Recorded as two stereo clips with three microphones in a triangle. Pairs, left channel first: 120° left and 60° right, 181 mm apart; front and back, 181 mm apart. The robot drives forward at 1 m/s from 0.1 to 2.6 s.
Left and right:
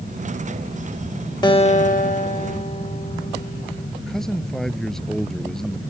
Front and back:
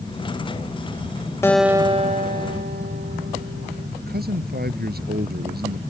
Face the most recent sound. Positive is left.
turn(degrees=-150)